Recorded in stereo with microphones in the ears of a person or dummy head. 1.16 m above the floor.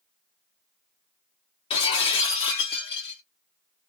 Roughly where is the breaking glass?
Left.